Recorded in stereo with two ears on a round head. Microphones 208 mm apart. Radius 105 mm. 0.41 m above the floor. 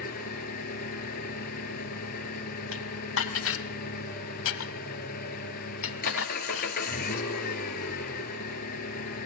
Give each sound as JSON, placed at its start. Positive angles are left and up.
{"t": 0.0, "sound": "an engine running", "side_deg": 40, "distance_m": 2.5}
{"t": 2.7, "sound": "dishes clattering", "side_deg": 60, "distance_m": 1.5}